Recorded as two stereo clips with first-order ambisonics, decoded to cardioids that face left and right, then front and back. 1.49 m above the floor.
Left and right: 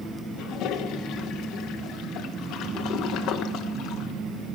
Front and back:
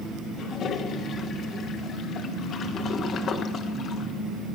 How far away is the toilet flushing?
About 1.0 m.